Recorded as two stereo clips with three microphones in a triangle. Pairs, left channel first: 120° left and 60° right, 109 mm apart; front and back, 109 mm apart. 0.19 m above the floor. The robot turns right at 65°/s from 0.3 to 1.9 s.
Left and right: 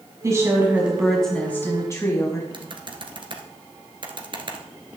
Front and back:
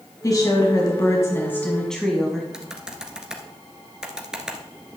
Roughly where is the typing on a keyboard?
Right.